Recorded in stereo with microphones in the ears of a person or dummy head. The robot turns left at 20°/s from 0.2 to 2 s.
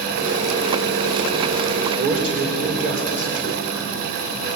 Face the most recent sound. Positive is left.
turn(degrees=-50)  # may be behind; listen again after turning